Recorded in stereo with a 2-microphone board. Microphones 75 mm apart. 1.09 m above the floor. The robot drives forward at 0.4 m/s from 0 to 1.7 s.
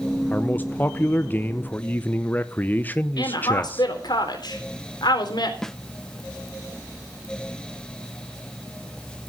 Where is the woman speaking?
65° left (ahead or behind), 3.5 m.